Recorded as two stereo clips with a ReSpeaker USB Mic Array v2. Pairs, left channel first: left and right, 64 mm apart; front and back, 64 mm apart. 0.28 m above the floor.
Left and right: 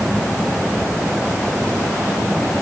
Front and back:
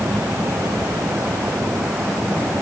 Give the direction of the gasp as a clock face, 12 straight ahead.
No gasp in this recording.